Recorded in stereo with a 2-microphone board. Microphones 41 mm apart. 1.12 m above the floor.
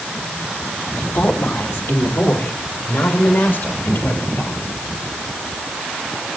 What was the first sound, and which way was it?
A woman speaking, 85° left.